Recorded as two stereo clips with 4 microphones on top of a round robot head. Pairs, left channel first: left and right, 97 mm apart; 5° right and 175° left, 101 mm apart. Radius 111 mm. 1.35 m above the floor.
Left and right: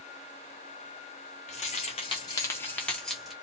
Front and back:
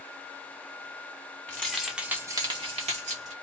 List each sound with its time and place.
1.5 s keys jangling: 70° left, 0.9 m; by 3.3 s straight behind, 1.0 m